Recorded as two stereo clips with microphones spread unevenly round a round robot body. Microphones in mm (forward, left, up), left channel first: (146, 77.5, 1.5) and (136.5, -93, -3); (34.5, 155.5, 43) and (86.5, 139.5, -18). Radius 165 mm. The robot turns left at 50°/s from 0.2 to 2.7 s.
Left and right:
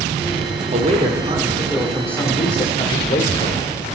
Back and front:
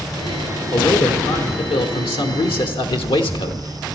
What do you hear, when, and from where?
0.7 s a man speaking: 120° right, 0.9 m; by 3.9 s 140° left, 0.9 m